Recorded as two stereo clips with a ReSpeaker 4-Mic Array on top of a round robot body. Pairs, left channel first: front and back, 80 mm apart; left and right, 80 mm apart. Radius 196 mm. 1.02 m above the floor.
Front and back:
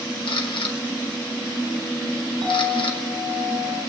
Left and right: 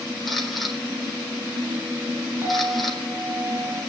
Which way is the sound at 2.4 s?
145° right.